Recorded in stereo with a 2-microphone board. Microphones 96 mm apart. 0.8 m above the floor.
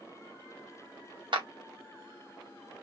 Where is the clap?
55° right (ahead or behind), 1.1 m.